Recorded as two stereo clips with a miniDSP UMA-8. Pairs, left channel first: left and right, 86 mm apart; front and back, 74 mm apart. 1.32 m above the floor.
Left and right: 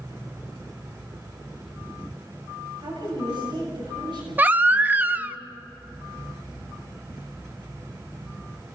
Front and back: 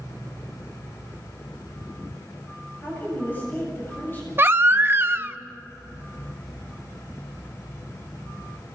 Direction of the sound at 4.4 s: 145° right.